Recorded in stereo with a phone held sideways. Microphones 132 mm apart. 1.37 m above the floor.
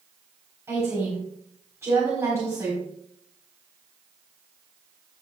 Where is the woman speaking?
20° right (ahead or behind), 4 m.